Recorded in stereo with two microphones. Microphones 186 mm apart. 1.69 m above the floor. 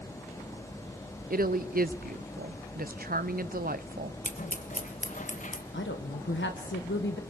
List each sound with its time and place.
1.3 s a woman speaking: 50° right (ahead or behind), 0.7 m
4.2 s scissors: 45° left (ahead or behind), 1.4 m
5.7 s a woman speaking: 80° left, 1.7 m